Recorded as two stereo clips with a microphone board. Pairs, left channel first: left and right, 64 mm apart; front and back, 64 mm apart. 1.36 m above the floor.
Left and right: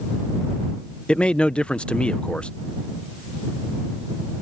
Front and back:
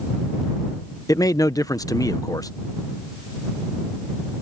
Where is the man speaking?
15° left.